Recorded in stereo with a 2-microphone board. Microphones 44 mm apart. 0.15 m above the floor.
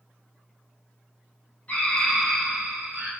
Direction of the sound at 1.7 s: 30° left (ahead or behind).